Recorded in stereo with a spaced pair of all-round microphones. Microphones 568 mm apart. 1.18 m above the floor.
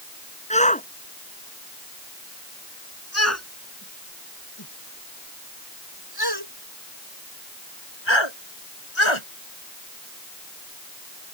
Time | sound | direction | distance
0.5 | a shout | 10° left (ahead or behind) | ?